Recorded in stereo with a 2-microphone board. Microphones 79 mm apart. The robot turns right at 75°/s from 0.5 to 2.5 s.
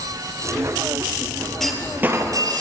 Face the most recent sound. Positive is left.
turn(degrees=-120)